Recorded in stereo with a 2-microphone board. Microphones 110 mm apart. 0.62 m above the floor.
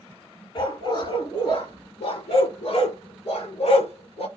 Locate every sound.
0.6 s a dog barking: 45° left (ahead or behind), 3 m; by 4.3 s 80° left, 2.5 m